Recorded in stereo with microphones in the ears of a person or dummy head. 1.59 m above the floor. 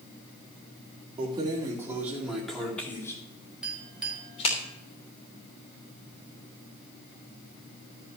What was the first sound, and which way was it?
Keys jangling, 30° right (ahead or behind).